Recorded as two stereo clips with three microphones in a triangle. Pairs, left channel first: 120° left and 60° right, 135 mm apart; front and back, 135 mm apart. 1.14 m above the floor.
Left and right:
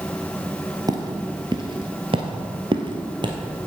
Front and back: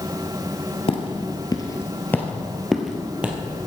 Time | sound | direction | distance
0.9 | footsteps | 15° right | 1.5 m